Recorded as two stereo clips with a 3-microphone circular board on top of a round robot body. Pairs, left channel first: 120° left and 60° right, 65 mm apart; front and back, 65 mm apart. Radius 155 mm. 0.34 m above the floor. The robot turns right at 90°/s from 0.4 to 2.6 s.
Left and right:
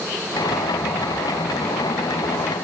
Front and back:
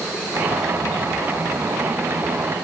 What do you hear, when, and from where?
Only background noise.